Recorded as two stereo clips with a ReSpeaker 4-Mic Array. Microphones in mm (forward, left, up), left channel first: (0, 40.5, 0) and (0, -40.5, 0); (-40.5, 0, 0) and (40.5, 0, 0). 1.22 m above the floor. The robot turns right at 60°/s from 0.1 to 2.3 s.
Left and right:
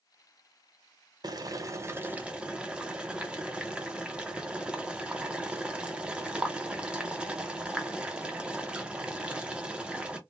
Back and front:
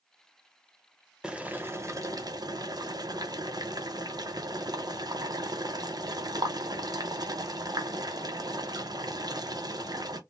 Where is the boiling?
80° right, 0.6 m; by 10.2 s 15° right, 0.6 m.